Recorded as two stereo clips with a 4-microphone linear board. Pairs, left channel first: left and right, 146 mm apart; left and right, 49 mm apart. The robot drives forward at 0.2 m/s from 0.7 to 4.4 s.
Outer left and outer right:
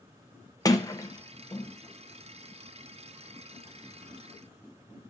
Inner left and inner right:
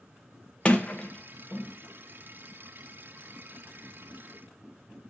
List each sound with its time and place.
0.7 s a sliding door: 25° left (ahead or behind), 0.9 m; by 1.7 s 20° left (ahead or behind), 1.0 m